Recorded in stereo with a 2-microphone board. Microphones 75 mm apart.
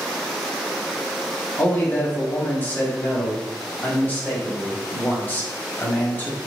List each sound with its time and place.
1.6 s a man speaking: 25° left (ahead or behind), 1.7 m